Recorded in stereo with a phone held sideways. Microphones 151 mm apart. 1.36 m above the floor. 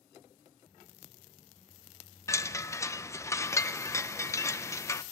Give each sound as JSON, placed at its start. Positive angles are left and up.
{"t": 2.3, "sound": "a chime", "side_deg": 20, "distance_m": 0.6}